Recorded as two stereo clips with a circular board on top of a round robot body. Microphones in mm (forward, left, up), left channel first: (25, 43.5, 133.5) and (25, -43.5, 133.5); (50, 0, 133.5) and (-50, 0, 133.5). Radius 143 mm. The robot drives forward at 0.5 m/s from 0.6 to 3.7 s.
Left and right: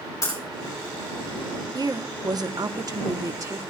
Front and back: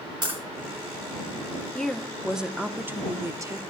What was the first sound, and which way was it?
Breaking glass, 135° left.